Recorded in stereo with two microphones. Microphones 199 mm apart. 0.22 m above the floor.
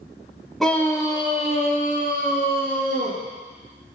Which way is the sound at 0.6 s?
Centre (ahead or behind).